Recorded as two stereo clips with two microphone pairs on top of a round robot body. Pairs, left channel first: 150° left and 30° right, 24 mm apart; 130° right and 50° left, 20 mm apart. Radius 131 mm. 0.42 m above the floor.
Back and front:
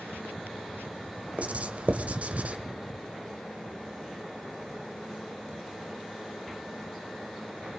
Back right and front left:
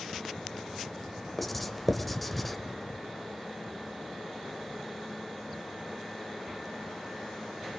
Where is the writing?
45° right, 1.5 m.